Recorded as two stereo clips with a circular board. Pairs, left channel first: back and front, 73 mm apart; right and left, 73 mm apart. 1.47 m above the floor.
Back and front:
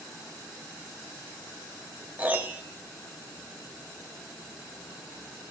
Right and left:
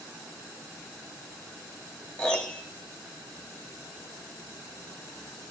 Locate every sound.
2.2 s a piano: 35° right, 1.0 m